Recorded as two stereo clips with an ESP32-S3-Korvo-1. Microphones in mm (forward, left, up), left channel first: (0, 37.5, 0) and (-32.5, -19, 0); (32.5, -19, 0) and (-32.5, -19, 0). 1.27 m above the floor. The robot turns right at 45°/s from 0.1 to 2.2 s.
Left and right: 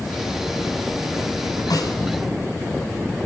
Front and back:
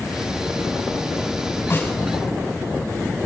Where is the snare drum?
50° left, 5.5 m; by 1.9 s 65° left, 5.5 m.